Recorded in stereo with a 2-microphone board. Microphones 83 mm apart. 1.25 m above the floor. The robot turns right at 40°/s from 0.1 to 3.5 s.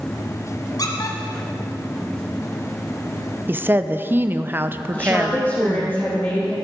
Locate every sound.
0.8 s a squeak: 50° left (ahead or behind), 1.7 m; by 1.2 s 45° left (ahead or behind), 1.7 m
3.5 s a woman speaking: 25° right (ahead or behind), 0.6 m
4.9 s a woman speaking: 25° left (ahead or behind), 2.5 m